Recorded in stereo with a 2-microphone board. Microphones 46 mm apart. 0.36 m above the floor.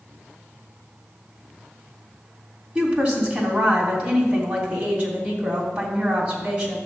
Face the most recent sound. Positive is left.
turn(degrees=-20)  # may be behind; listen again after turning